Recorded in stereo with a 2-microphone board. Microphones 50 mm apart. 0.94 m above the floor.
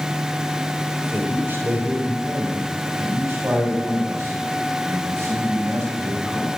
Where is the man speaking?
40° right (ahead or behind), 3.5 m; by 6.5 s 75° right (ahead or behind), 5.5 m.